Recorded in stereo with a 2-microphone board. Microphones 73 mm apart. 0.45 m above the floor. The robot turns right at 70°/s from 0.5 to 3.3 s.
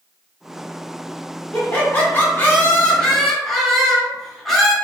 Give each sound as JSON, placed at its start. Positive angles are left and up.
{"t": 1.5, "sound": "laughter", "side_deg": 20, "distance_m": 0.8}